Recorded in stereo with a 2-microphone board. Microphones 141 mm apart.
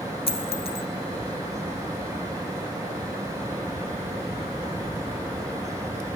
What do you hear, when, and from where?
0.3 s a dropped coin: 45° left (ahead or behind), 1.7 m